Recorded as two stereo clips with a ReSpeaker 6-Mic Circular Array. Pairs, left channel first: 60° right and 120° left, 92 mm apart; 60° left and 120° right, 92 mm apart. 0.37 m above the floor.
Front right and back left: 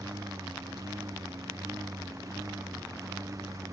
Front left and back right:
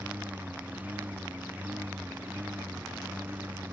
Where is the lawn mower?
170° left.